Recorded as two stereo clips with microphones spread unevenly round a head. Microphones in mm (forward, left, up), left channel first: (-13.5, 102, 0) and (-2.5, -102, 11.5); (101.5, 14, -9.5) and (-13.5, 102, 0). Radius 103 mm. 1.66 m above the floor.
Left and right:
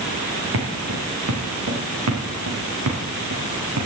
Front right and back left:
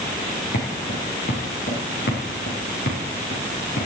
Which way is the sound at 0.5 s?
75° right.